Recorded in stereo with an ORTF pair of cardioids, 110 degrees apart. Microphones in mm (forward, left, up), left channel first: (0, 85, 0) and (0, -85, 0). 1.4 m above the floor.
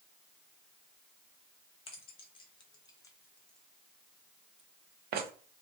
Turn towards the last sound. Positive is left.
turn(degrees=-75)